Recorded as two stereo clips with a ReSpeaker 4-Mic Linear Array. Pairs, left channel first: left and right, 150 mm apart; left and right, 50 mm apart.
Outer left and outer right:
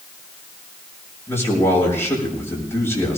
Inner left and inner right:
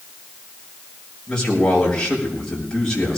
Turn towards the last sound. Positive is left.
turn(degrees=15)  # may be behind; listen again after turning